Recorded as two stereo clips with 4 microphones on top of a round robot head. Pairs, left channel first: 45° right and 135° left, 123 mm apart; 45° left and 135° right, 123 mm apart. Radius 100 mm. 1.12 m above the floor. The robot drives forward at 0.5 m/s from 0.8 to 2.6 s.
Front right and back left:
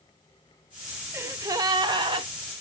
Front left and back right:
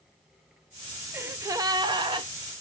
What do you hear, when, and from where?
1.1 s a gasp: straight behind, 0.5 m